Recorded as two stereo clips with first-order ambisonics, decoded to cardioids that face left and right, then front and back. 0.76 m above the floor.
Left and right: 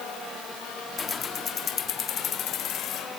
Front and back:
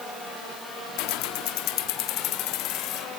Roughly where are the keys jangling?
Ahead.